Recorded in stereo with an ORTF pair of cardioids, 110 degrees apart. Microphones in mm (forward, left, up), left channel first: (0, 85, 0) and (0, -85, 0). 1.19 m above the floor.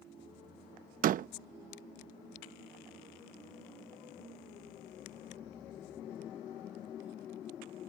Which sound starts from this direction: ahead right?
A door slam, at 1.0 s.